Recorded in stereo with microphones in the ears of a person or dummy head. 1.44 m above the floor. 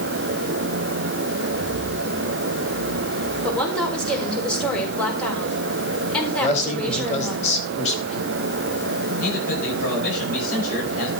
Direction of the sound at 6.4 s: 40° left (ahead or behind).